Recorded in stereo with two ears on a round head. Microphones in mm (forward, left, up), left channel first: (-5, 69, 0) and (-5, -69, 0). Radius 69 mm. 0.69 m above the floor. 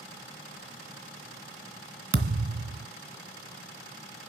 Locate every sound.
2.1 s a thud: 65° right (ahead or behind), 1.4 m